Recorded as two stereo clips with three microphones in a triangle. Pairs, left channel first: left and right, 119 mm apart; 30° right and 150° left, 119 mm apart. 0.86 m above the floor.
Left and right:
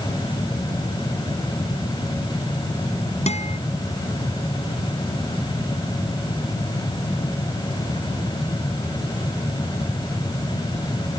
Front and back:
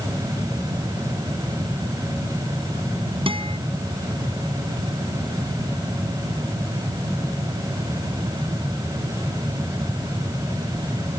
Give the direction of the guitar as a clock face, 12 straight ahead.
8 o'clock.